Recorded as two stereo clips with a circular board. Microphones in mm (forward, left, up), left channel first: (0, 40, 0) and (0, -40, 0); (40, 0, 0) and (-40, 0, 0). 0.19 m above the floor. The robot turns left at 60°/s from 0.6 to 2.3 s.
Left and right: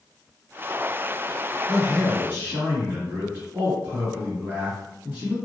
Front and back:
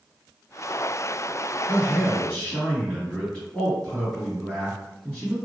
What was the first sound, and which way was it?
A man speaking, 25° right.